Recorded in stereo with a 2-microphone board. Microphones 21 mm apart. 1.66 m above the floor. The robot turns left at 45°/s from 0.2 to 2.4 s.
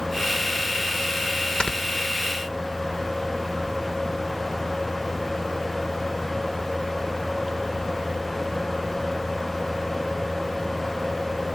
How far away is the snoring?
About 2 m.